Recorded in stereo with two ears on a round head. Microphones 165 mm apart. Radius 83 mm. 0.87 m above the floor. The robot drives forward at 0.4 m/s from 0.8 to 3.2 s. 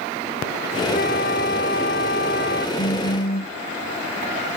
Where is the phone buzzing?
55° left (ahead or behind).